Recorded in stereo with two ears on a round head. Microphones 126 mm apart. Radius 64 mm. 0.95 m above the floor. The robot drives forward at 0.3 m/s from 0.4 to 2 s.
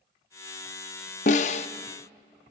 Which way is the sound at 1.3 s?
60° left (ahead or behind).